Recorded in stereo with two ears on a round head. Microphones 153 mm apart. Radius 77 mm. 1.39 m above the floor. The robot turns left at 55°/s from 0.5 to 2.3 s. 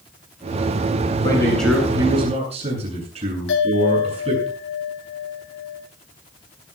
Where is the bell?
85° left, 9 m.